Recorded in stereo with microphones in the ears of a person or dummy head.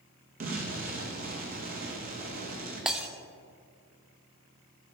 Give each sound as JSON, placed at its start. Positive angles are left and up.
{"t": 0.4, "sound": "an explosion", "side_deg": -50, "distance_m": 1.5}
{"t": 2.9, "sound": "breaking glass", "side_deg": 0, "distance_m": 0.8}